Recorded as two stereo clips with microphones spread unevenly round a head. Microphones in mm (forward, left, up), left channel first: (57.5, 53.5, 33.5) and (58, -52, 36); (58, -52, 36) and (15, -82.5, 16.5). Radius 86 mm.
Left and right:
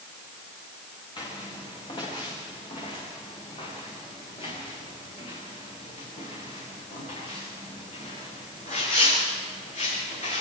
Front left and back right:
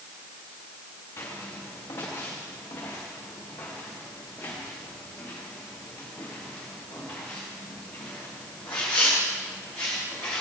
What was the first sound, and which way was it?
Footsteps, 45° left.